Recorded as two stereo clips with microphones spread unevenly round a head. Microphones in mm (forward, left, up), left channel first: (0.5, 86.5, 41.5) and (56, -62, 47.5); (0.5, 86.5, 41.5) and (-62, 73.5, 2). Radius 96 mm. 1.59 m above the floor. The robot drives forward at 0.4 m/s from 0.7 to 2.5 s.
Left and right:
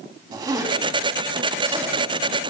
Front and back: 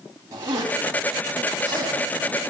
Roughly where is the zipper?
Behind right.